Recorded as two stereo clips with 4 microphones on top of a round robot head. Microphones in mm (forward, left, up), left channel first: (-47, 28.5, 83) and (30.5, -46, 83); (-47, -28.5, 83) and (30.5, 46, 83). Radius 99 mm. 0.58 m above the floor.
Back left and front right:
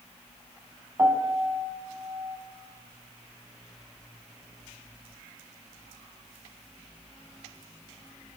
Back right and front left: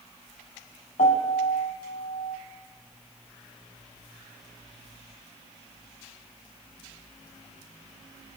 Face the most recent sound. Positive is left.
turn(degrees=-110)